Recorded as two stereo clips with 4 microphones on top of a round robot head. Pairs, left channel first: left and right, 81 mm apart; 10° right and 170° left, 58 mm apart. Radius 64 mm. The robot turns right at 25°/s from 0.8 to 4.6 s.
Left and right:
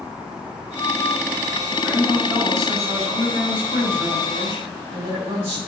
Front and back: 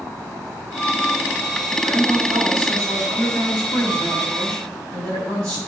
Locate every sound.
1.8 s a woman speaking: 160° right, 5.5 m; by 5.6 s 90° right, 5.5 m